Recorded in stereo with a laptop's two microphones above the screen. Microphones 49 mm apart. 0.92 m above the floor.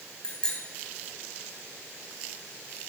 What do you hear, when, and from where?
0.2 s a bicycle bell: 20° left (ahead or behind), 4 m